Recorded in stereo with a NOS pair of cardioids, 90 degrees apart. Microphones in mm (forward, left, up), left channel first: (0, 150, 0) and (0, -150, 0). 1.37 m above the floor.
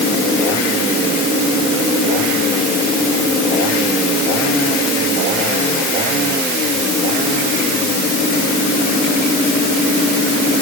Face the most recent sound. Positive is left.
No sound to turn to.